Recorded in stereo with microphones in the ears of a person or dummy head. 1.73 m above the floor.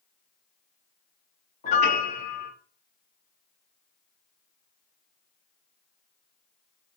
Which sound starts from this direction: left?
A piano, at 1.6 s.